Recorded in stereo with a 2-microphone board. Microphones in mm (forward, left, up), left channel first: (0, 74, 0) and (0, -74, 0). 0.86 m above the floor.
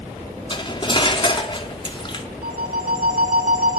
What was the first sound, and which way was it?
Cutlery clinking, 35° left (ahead or behind).